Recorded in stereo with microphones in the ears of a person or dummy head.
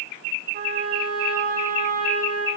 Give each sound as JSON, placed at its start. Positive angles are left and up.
{"t": 0.5, "sound": "a trumpet", "side_deg": -50, "distance_m": 1.2}